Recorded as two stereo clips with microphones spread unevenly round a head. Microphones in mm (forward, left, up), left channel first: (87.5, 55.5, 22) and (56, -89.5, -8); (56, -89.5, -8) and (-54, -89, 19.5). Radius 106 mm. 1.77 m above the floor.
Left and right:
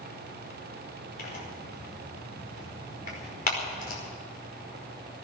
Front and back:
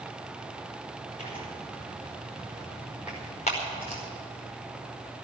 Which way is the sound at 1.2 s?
60° left.